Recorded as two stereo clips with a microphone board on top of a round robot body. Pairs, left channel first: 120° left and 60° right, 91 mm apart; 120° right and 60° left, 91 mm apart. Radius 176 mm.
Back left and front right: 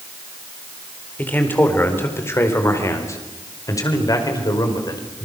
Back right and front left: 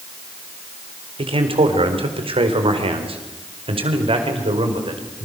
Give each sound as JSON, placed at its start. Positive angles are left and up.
{"t": 1.2, "sound": "a man speaking", "azimuth_deg": 50, "distance_m": 4.5}